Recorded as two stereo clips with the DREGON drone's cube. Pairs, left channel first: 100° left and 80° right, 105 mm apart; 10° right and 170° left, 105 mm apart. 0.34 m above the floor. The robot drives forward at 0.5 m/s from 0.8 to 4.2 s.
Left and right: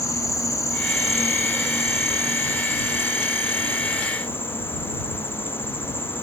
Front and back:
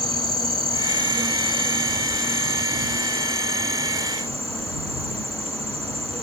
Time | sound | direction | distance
0.0 | an insect | 155° left | ?